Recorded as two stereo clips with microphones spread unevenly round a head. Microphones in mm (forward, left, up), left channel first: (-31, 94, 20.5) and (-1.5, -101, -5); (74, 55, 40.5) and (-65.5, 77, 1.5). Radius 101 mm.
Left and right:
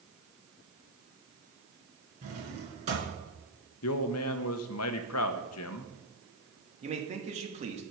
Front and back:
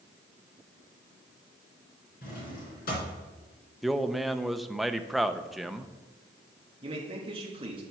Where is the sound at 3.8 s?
85° left, 0.7 m.